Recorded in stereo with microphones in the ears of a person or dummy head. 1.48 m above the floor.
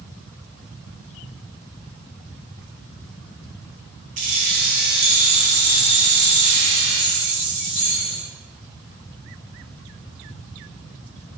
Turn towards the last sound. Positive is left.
turn(degrees=-55)  # may be behind; listen again after turning